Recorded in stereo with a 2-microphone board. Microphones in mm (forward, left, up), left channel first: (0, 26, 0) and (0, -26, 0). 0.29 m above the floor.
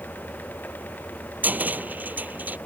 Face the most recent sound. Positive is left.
turn(degrees=-30)  # may be behind; listen again after turning